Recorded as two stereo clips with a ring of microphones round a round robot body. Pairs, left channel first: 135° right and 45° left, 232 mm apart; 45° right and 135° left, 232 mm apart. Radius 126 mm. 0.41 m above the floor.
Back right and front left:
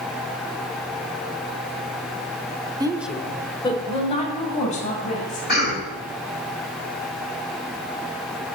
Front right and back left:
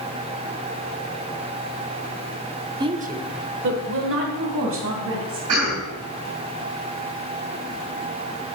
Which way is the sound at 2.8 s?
90° left.